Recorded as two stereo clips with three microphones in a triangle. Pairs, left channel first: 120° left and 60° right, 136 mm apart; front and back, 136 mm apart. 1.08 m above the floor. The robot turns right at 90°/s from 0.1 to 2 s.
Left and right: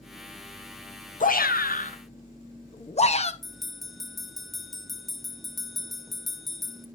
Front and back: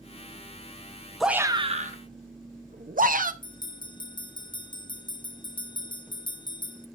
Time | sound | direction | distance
1.2 | a shout | 90° left | 0.9 m
3.4 | a bell | 30° left | 0.6 m